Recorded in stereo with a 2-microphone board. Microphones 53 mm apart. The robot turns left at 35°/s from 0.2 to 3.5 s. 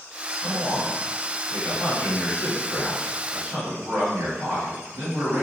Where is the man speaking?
85° left, 1.8 m; by 5.4 s 20° right, 1.8 m.